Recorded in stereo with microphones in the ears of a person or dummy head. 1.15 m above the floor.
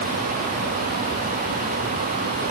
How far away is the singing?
No singing in this recording.